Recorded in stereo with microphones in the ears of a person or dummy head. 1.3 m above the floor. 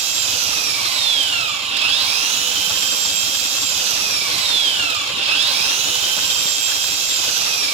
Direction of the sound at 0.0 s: 35° right (ahead or behind).